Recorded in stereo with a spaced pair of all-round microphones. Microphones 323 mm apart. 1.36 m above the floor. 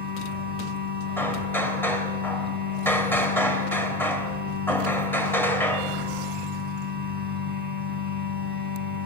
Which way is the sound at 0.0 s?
30° right (ahead or behind).